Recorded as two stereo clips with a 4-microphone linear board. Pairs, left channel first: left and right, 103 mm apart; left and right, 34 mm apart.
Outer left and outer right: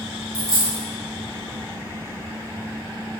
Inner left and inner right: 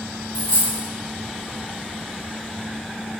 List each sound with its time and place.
0.3 s a dropped coin: 35° right (ahead or behind), 1.5 m